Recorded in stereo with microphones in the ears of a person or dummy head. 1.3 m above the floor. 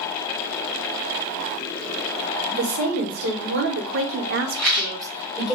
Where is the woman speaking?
55° right (ahead or behind), 1.4 m; by 5.5 s centre (ahead or behind), 0.8 m.